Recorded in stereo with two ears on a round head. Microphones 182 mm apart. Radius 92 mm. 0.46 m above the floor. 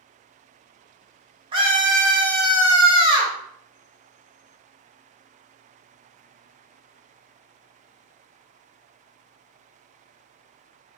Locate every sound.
1.5 s a scream: 25° right (ahead or behind), 0.9 m